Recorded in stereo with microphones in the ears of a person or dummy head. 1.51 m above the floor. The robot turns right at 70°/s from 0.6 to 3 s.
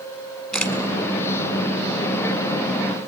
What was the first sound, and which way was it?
A camera shutter, centre (ahead or behind).